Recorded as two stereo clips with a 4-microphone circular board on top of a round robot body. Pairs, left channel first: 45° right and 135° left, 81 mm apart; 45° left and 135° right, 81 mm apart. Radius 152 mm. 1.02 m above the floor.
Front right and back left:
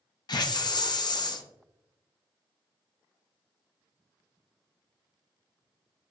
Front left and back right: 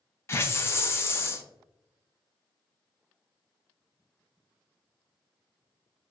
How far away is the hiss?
About 0.5 m.